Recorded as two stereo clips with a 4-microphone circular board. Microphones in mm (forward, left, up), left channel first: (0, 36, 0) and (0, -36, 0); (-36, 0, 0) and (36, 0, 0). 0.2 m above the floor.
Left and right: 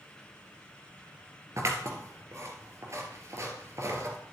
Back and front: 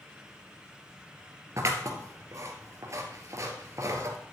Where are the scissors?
45° right, 2.5 m.